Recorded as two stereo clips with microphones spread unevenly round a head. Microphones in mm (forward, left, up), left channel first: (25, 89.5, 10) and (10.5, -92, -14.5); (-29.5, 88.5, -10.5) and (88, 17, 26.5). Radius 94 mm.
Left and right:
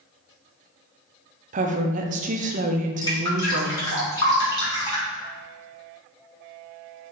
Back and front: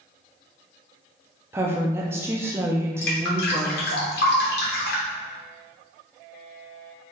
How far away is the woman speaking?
About 0.5 m.